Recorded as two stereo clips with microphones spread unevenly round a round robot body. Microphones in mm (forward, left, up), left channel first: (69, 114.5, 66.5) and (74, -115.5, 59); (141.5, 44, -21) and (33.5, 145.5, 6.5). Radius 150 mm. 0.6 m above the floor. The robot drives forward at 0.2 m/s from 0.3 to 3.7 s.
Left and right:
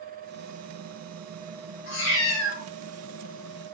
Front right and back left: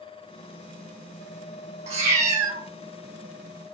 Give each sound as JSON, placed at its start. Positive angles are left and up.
{"t": 1.9, "sound": "a cat meowing", "azimuth_deg": 130, "distance_m": 0.6}